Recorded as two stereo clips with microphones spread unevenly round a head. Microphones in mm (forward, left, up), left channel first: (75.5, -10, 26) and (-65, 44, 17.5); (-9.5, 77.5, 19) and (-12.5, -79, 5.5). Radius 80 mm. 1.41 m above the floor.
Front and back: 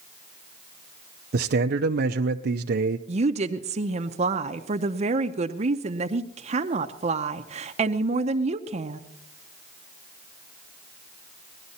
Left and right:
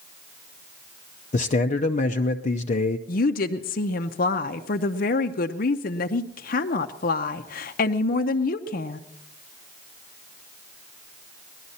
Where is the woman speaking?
115° left, 0.7 m.